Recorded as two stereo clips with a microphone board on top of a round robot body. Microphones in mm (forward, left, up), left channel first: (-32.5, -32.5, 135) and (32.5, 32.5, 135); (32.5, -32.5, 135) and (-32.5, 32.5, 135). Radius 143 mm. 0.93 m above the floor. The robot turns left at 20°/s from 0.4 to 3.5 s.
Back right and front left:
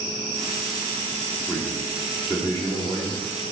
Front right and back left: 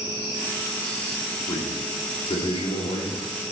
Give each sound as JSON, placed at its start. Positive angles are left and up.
{"t": 1.5, "sound": "a man speaking", "azimuth_deg": -55, "distance_m": 2.5}